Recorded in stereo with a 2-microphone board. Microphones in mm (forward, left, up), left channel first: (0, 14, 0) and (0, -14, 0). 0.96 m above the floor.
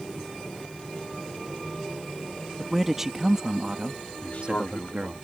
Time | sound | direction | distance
2.6 | a man speaking | 5° right (ahead or behind) | ?
4.2 | a man speaking | 65° left (ahead or behind) | ?